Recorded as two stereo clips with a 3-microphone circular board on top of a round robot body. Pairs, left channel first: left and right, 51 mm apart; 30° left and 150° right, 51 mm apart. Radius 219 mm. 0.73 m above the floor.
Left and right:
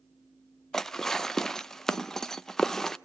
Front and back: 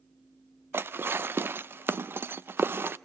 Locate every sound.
0.7 s dishes clattering: 170° left, 0.7 m